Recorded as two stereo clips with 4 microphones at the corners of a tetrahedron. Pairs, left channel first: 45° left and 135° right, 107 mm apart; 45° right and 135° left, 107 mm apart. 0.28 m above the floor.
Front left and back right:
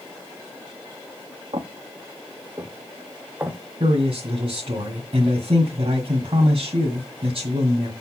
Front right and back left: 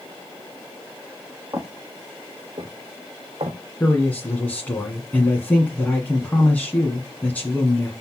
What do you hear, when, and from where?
1.5 s footsteps: 170° right, 1.6 m; by 3.6 s 150° left, 1.6 m
3.8 s a man speaking: 115° right, 1.9 m